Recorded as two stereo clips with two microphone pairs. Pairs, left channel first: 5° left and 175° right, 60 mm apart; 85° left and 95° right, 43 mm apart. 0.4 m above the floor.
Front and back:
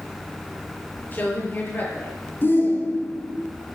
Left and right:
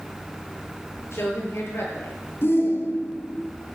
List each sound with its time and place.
1.1 s a woman speaking: 65° left, 7.5 m
2.4 s a shout: 60° left, 5 m